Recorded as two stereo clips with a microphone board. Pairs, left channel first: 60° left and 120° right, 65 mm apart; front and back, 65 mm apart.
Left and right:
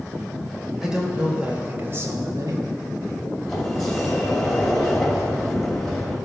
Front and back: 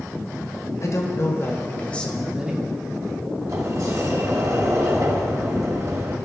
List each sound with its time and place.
0.8 s a man speaking: 40° right, 2 m; by 2.7 s 120° right, 1.2 m
3.5 s a sliding door: 145° left, 1.9 m